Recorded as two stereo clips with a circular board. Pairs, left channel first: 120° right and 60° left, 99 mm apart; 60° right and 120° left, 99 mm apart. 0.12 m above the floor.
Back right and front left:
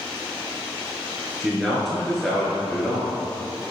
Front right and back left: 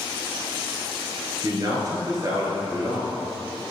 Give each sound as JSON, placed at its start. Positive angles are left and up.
{"t": 1.4, "sound": "a man speaking", "azimuth_deg": 155, "distance_m": 1.5}